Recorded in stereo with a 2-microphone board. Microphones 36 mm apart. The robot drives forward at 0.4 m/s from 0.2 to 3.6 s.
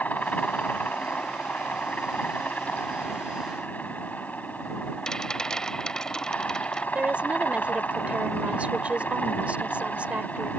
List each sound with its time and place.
0.0 s a helicopter: 50° left (ahead or behind)
5.1 s a rattle: 20° left (ahead or behind)
7.0 s a woman speaking: 40° right (ahead or behind)